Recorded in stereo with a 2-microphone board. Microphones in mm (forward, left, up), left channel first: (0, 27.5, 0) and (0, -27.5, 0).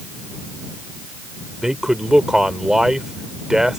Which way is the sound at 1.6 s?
10° right (ahead or behind).